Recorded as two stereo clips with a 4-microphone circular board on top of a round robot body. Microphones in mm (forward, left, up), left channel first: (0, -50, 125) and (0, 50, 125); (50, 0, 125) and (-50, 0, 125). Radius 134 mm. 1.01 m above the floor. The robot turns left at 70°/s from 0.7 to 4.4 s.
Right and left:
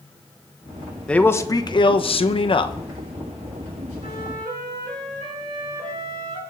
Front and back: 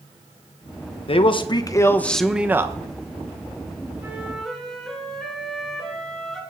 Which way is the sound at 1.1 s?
10° right.